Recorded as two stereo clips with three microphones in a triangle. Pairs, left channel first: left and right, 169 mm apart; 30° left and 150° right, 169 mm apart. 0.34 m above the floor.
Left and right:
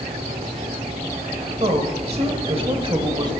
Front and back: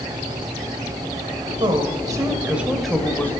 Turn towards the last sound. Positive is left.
turn(degrees=-45)